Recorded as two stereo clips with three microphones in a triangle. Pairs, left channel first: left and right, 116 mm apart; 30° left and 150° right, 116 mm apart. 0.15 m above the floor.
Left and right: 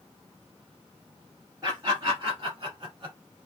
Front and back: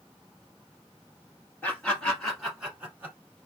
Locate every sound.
1.6 s laughter: 35° right, 1.9 m; by 3.1 s 95° right, 1.5 m